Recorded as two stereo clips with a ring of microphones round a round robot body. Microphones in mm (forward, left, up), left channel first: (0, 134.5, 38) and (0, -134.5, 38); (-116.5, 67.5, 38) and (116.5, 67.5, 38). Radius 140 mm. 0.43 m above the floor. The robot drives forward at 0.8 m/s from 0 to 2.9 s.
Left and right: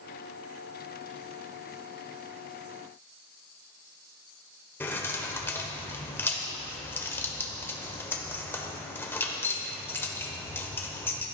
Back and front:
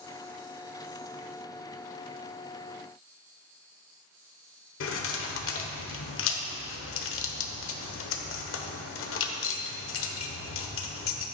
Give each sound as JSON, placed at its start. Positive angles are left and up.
{"t": 4.8, "sound": "keys jangling", "azimuth_deg": 170, "distance_m": 1.1}